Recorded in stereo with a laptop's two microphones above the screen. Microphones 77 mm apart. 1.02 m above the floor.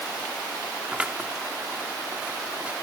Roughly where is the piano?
I don't hear a piano.